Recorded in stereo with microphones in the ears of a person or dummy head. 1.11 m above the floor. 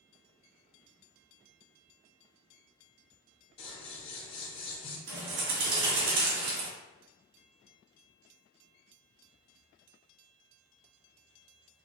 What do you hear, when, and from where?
3.6 s scissors: 30° left (ahead or behind), 1.0 m
5.1 s a bird: 85° right, 1.8 m